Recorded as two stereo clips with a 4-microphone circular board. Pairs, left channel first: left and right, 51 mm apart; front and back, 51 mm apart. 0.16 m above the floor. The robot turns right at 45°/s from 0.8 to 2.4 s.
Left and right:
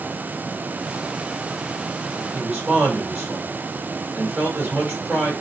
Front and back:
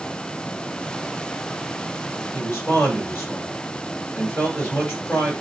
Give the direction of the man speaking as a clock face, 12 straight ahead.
1 o'clock.